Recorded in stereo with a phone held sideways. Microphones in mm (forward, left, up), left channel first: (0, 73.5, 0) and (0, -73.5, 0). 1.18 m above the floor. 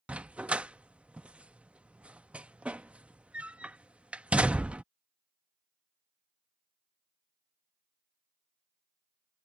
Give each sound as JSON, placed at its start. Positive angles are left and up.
{"t": 0.1, "sound": "a dog barking", "side_deg": -10}